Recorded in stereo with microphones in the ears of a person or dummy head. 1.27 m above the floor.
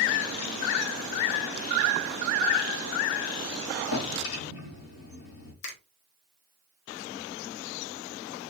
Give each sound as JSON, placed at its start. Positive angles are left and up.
{"t": 3.9, "sound": "a drawer", "side_deg": 65, "distance_m": 2.0}
{"t": 5.6, "sound": "a finger snap", "side_deg": 70, "distance_m": 1.5}